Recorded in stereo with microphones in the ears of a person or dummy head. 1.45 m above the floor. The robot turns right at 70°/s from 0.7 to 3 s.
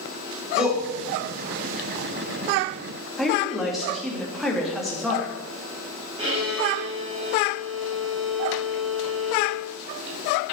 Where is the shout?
5° right (ahead or behind), 3 m; by 0.8 s 5° left (ahead or behind), 3 m.